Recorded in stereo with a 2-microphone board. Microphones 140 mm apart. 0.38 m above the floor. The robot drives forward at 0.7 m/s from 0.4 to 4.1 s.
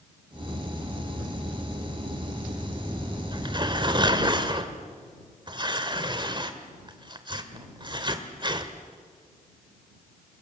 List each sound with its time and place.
3.3 s tearing paper: 35° right (ahead or behind), 1.7 m